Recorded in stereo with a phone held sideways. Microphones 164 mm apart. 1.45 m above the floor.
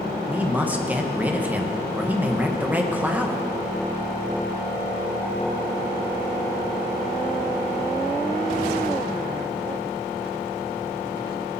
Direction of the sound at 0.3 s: 10° right (ahead or behind).